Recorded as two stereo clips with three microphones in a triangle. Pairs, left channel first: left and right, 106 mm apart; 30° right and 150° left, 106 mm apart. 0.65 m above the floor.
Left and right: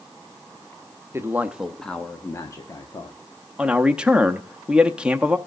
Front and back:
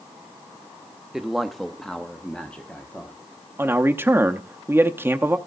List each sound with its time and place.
1.1 s a man speaking: 125° right, 0.9 m; by 3.2 s 45° left, 1.5 m
3.6 s a man speaking: 160° right, 0.7 m